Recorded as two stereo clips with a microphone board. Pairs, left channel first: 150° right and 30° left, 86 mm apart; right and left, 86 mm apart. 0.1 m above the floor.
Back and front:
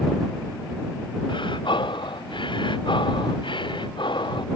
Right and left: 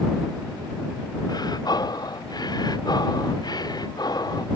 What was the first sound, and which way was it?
Breathing, 130° right.